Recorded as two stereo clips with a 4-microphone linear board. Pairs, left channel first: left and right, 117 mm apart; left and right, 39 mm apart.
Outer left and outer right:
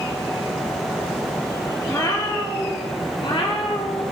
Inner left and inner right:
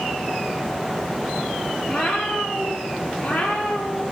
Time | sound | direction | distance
1.9 | a cat meowing | 30° left (ahead or behind) | 3.5 m